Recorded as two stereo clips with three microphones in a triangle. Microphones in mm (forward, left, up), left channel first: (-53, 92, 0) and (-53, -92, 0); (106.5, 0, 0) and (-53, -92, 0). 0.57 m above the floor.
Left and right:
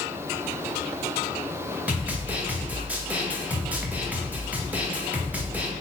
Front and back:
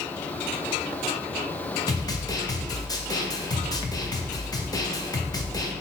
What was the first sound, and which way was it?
A snare drum, 20° right.